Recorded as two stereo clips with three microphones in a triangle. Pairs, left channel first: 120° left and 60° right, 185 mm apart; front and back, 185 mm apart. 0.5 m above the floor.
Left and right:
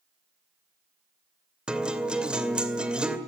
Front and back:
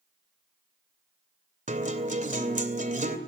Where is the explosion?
No explosion in this recording.